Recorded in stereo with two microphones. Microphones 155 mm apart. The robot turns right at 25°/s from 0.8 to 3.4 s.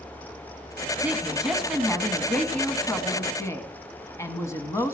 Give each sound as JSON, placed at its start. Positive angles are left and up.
{"t": 1.0, "sound": "a woman speaking", "side_deg": -10, "distance_m": 1.7}